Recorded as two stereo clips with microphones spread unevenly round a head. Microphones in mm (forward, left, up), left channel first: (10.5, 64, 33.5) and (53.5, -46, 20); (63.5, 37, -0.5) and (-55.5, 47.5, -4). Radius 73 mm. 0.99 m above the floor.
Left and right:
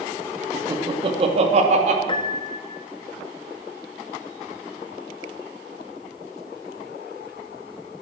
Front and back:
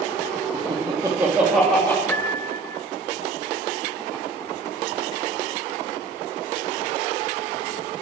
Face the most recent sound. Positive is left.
turn(degrees=70)